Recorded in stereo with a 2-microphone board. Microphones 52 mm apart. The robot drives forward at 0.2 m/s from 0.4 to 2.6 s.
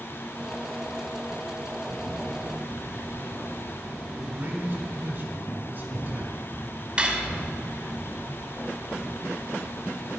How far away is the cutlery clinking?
About 0.7 m.